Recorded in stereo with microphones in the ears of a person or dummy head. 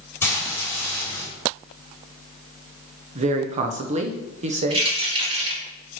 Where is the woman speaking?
40° right (ahead or behind), 0.9 m.